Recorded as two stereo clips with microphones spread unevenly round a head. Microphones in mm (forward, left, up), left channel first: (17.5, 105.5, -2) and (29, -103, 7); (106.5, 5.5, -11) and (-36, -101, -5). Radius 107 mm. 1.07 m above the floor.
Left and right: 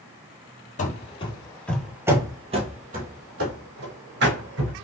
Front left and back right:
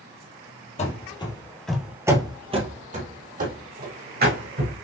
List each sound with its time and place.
0.8 s running footsteps: 60° left, 1.3 m; by 4.8 s 120° right, 3 m